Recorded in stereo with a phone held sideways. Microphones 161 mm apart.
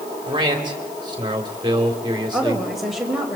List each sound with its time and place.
0.3 s a man speaking: 30° right (ahead or behind), 3.5 m
2.3 s a woman speaking: centre (ahead or behind), 4 m